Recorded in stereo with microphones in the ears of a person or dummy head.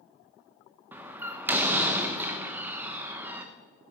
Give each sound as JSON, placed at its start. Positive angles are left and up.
{"t": 0.9, "sound": "a door slam", "side_deg": -20, "distance_m": 1.0}